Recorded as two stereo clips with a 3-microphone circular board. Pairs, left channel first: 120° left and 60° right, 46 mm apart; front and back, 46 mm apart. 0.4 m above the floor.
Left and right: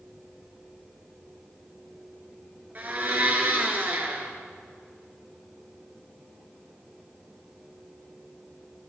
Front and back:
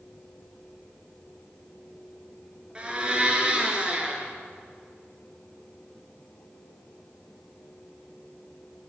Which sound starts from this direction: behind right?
A blender, at 2.8 s.